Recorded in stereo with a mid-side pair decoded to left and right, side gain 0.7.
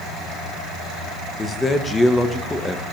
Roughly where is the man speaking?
Ahead.